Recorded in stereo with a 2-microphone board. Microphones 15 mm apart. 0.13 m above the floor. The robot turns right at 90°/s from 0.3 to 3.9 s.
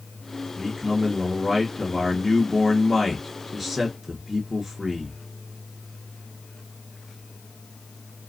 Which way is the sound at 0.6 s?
80° right.